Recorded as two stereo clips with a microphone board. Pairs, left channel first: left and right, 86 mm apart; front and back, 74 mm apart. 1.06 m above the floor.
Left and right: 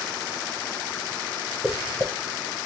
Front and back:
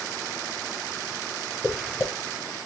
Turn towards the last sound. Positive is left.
turn(degrees=-40)